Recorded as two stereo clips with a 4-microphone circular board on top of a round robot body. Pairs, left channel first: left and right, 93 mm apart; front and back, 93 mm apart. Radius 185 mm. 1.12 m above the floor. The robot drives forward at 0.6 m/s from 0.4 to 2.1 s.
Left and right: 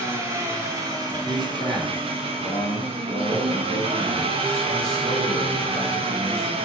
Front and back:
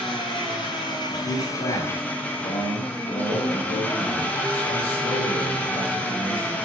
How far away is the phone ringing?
I don't hear a phone ringing.